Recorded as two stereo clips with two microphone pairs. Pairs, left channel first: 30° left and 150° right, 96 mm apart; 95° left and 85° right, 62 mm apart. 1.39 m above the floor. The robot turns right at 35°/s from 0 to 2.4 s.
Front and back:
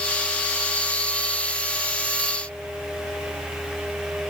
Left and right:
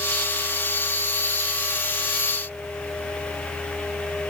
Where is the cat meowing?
I don't hear a cat meowing.